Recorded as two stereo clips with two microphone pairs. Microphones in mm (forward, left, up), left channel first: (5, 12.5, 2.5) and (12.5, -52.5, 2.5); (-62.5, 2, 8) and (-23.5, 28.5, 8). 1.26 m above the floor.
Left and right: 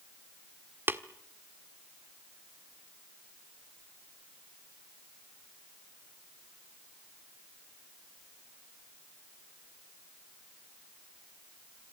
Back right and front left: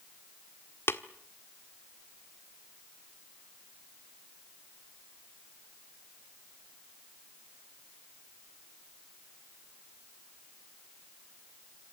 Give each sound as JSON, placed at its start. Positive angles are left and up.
{"t": 0.9, "sound": "tapping", "azimuth_deg": -130, "distance_m": 1.4}